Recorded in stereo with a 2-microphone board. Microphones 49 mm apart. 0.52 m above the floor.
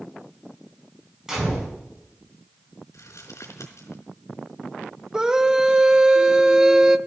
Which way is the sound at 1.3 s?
10° right (ahead or behind).